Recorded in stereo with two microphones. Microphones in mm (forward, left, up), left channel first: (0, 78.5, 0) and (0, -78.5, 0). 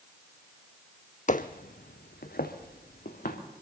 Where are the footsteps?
50° left (ahead or behind), 0.6 m; by 3.4 s 70° left (ahead or behind), 2.5 m.